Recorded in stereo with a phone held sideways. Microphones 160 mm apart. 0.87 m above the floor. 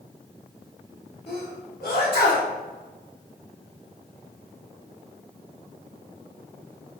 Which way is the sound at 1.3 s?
75° left (ahead or behind).